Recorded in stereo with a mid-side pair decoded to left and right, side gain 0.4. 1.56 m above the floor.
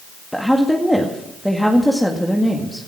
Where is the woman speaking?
Straight ahead, 2 m.